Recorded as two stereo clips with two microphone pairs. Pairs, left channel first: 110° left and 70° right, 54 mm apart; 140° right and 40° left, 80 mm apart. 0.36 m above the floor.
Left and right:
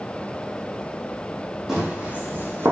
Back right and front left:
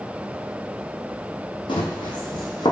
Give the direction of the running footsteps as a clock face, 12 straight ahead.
5 o'clock.